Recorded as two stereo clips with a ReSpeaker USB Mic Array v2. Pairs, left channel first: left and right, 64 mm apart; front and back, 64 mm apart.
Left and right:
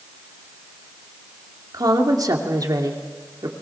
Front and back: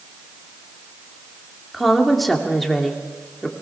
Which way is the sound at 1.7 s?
90° right.